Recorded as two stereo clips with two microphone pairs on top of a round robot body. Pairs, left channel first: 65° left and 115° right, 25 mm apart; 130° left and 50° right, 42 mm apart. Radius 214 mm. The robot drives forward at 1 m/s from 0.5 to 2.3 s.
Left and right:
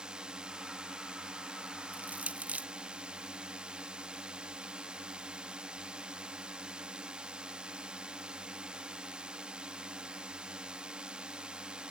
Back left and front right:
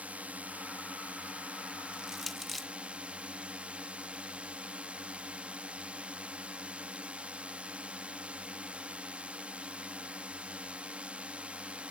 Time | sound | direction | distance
0.0 | a drone | 90° right | ?
1.9 | crushing | 115° right | ?